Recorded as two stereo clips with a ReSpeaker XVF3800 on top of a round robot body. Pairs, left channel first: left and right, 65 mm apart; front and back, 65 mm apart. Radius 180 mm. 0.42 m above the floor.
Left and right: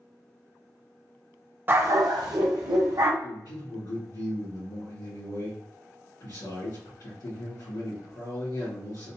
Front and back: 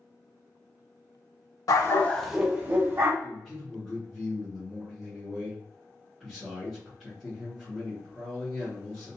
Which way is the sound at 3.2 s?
85° left.